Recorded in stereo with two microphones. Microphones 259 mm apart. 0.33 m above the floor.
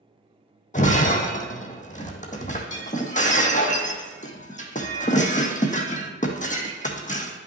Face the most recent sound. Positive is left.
turn(degrees=30)  # may be behind; listen again after turning